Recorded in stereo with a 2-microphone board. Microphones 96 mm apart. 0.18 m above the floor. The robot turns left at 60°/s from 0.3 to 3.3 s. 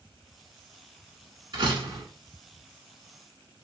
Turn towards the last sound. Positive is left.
turn(degrees=180)